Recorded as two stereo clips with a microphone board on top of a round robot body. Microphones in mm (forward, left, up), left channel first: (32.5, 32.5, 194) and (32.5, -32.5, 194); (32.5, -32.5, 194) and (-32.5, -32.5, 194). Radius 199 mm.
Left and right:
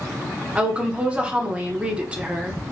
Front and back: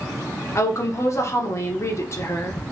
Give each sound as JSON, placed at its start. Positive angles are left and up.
{"t": 0.6, "sound": "a woman speaking", "azimuth_deg": -25, "distance_m": 1.3}